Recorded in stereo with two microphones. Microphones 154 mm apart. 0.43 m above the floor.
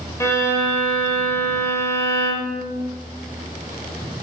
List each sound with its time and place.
0.2 s a violin: 20° left (ahead or behind), 1.2 m